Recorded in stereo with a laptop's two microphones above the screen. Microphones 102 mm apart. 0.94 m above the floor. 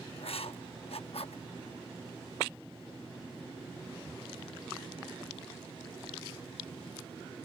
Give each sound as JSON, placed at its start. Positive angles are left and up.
{"t": 0.2, "sound": "writing", "side_deg": 70}